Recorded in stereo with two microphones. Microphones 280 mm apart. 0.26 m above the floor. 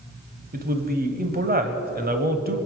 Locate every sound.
0.5 s a man speaking: 35° right (ahead or behind), 1.2 m